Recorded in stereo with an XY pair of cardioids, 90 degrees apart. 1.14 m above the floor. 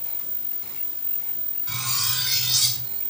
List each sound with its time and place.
1.7 s cutlery clinking: 15° right, 6 m